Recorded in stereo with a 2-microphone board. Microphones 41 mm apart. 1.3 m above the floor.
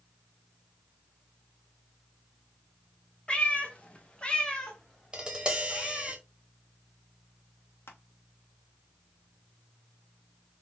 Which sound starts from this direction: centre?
Tapping, at 5.1 s.